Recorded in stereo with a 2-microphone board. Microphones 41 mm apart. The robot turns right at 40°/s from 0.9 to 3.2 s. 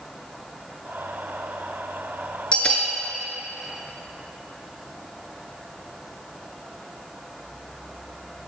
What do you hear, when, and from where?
2.5 s a bell: 30° left (ahead or behind), 0.7 m; by 2.9 s 15° left (ahead or behind), 0.7 m